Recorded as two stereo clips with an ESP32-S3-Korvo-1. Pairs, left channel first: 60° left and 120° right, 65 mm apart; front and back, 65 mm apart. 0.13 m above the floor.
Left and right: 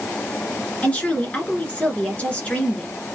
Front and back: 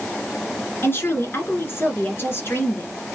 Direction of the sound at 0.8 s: 5° left.